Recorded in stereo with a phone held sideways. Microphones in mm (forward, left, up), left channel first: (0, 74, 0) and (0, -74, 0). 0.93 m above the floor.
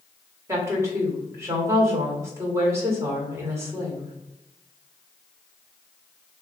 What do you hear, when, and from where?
0.5 s a woman speaking: 20° right (ahead or behind), 1.6 m